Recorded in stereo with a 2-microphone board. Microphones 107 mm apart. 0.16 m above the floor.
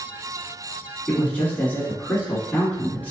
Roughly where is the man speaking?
Centre.